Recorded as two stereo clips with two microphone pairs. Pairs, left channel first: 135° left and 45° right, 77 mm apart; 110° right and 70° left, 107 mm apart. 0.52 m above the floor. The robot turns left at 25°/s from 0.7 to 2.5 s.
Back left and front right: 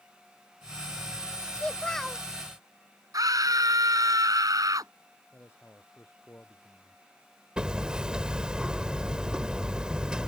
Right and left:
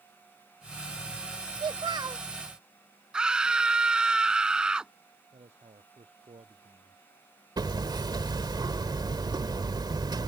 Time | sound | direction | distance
1.6 | a child speaking | 65° left | ?
3.1 | a scream | 10° right | ?
5.3 | a man speaking | 70° left | ?
7.6 | hammering | 30° left | ?